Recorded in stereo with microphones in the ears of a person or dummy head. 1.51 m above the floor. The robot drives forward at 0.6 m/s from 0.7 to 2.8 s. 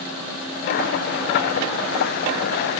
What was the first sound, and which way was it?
Only background noise.